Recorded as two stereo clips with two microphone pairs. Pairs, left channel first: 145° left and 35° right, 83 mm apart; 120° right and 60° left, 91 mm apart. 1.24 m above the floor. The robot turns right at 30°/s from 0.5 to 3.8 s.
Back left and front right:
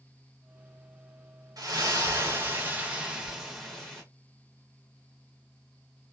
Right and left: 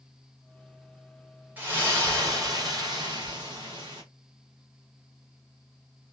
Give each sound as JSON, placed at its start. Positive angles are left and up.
{"t": 1.6, "sound": "a splash", "azimuth_deg": -10, "distance_m": 1.6}